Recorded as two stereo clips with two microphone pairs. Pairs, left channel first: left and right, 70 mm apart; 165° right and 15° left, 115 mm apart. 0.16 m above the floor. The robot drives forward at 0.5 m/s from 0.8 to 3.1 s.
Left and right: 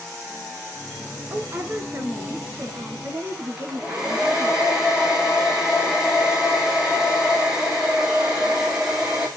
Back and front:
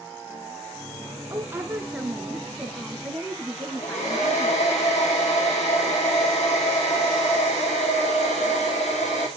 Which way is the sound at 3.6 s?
170° right.